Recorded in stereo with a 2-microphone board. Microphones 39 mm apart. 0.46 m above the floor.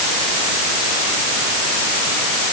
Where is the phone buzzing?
No phone buzzing in this recording.